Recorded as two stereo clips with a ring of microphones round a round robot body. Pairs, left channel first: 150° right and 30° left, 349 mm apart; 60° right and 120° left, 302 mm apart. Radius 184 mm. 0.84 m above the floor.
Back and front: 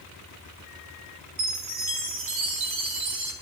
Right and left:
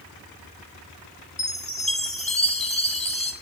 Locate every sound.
1.4 s a chime: 10° left, 5 m